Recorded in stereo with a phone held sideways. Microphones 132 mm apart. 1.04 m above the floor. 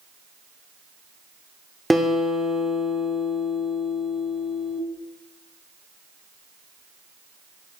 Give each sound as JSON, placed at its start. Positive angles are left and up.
{"t": 1.9, "sound": "a guitar", "side_deg": 0, "distance_m": 1.2}